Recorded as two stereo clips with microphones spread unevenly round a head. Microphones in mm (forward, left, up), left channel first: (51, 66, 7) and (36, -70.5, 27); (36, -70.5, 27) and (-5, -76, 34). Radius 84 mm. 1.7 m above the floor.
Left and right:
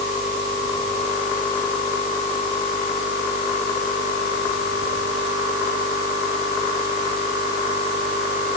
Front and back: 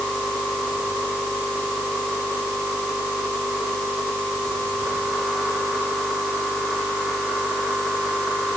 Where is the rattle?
No rattle in this recording.